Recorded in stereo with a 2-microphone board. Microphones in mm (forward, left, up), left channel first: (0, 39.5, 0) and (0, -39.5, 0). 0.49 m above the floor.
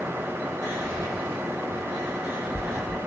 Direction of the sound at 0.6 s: 60° left (ahead or behind).